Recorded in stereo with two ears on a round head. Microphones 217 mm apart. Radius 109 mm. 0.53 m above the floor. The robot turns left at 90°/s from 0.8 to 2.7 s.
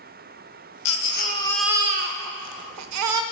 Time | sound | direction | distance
0.8 | a baby crying | 70° left | 0.6 m